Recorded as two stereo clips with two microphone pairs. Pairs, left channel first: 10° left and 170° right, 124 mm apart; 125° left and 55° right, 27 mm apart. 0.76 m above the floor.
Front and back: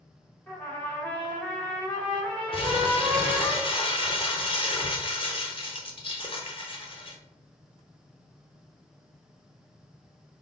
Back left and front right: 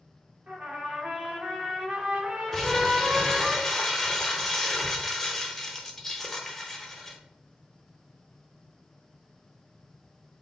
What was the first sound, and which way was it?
A trumpet, 75° right.